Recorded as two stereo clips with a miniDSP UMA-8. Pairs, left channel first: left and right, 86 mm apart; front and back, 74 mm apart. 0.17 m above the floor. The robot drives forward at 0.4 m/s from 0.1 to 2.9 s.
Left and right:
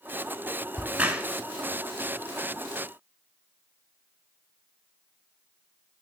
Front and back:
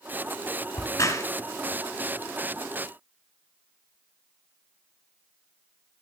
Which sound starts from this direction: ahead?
A crack, at 0.7 s.